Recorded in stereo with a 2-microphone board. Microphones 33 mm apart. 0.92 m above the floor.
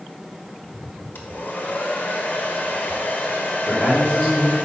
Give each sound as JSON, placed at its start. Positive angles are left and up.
{"t": 1.1, "sound": "a hair dryer", "side_deg": 70, "distance_m": 1.3}
{"t": 3.6, "sound": "a man speaking", "side_deg": 45, "distance_m": 2.5}